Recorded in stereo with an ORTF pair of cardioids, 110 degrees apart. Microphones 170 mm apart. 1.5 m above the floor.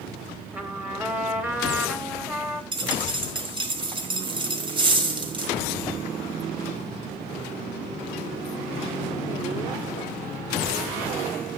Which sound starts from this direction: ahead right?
A dropped coin, at 2.7 s.